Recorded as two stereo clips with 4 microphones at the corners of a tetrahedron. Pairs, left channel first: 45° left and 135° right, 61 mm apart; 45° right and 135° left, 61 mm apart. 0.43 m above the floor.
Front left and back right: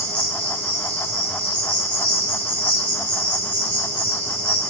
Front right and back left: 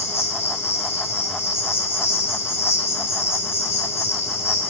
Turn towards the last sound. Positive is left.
turn(degrees=-10)